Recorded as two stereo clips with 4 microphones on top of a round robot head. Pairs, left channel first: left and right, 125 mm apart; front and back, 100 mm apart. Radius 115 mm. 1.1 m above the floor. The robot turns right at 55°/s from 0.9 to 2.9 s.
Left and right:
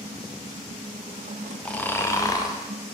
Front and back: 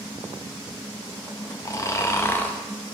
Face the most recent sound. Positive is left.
turn(degrees=85)